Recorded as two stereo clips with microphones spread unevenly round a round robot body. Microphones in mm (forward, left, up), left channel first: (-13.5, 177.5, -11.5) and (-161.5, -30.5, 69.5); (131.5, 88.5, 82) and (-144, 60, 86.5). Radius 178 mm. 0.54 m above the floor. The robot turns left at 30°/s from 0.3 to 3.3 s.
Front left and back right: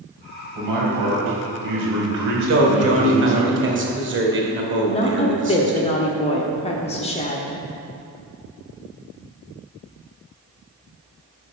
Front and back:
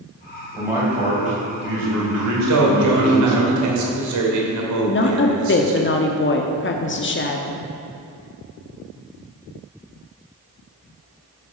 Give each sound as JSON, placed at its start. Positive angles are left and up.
{"t": 0.6, "sound": "a man speaking", "azimuth_deg": -85, "distance_m": 3.0}
{"t": 2.5, "sound": "a man speaking", "azimuth_deg": -150, "distance_m": 2.0}
{"t": 4.9, "sound": "a woman speaking", "azimuth_deg": 25, "distance_m": 1.1}